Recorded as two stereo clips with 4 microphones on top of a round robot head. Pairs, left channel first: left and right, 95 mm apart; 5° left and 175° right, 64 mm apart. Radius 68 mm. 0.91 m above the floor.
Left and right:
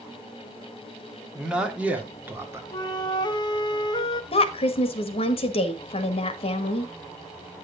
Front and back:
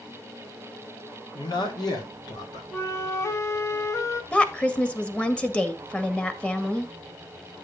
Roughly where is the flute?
Ahead left.